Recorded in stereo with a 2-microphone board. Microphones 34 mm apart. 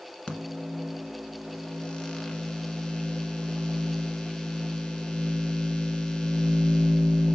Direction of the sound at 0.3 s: 15° left (ahead or behind).